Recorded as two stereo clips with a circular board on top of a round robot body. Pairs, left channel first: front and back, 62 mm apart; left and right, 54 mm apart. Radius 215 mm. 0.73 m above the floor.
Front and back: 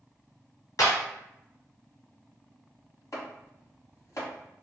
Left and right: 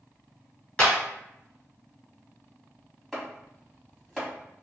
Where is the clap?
20° left, 1.5 m.